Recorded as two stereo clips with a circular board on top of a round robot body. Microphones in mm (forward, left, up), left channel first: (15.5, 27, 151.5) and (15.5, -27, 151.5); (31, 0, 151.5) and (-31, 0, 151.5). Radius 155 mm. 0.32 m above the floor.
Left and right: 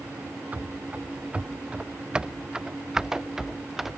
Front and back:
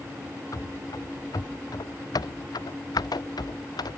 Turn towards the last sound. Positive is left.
turn(degrees=-5)